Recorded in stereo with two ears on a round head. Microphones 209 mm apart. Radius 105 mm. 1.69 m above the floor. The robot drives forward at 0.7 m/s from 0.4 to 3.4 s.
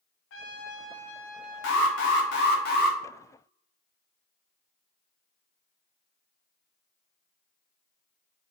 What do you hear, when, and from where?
0.3 s a trumpet: 60° left (ahead or behind), 0.7 m; by 2.6 s 20° left (ahead or behind), 1.8 m
1.6 s an alarm: 55° left (ahead or behind), 1.0 m; by 3.0 s 40° left (ahead or behind), 1.3 m